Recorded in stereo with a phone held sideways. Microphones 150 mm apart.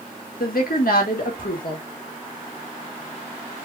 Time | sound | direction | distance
0.4 | a woman speaking | 75° left (ahead or behind) | 1.8 m